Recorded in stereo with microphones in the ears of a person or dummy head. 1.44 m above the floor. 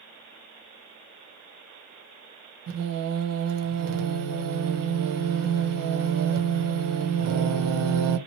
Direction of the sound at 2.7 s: 70° right (ahead or behind).